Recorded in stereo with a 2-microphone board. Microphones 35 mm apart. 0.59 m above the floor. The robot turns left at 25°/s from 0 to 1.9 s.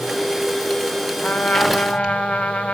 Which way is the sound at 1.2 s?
60° left (ahead or behind).